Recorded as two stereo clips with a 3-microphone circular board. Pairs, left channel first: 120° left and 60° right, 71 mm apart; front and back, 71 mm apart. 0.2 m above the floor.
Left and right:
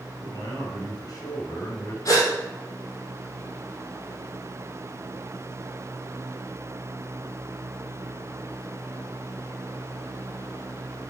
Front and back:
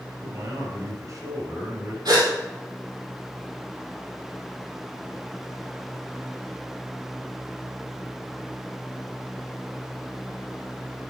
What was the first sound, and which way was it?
A man speaking, 150° left.